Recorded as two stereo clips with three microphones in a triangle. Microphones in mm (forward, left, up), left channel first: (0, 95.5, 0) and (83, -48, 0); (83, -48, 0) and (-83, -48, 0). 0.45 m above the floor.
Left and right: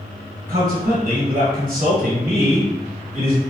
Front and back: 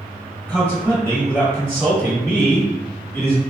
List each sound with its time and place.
0.5 s a man speaking: 75° right, 1.7 m